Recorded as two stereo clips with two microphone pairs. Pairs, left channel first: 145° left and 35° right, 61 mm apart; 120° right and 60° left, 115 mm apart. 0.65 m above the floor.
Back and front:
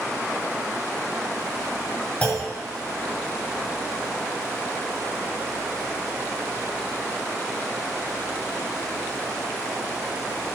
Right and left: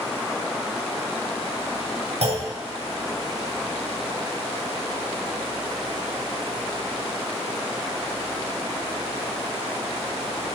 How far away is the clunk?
About 2 m.